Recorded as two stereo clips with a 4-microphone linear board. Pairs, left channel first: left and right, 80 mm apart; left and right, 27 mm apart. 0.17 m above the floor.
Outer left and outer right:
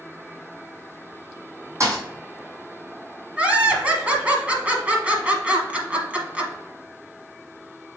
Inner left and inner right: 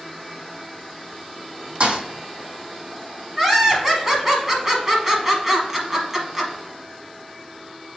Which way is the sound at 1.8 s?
40° right (ahead or behind).